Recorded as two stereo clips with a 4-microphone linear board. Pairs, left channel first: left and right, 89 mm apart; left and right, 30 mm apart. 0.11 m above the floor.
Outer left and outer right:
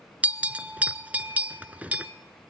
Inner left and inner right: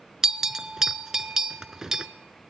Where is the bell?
15° right (ahead or behind), 0.5 m.